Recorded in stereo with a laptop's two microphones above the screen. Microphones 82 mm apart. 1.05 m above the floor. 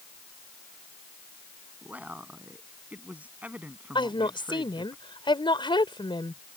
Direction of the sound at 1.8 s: 20° right (ahead or behind).